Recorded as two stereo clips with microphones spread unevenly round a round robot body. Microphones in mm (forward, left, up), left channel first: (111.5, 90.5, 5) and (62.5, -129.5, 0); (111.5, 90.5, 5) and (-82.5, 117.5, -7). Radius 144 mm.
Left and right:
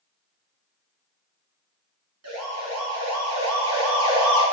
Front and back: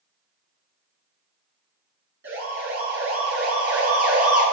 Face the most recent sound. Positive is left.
turn(degrees=-135)